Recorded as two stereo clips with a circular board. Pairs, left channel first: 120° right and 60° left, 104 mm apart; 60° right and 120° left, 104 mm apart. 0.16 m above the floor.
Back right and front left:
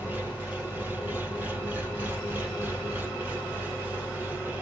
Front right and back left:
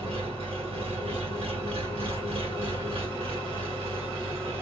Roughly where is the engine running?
Behind left.